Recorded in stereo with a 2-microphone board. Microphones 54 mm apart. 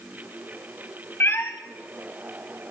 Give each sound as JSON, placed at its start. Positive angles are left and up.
{"t": 1.2, "sound": "a cat meowing", "side_deg": 45, "distance_m": 1.0}